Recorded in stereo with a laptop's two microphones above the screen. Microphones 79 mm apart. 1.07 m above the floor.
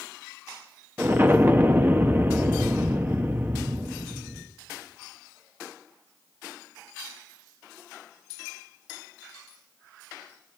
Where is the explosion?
25° right (ahead or behind), 1.1 m.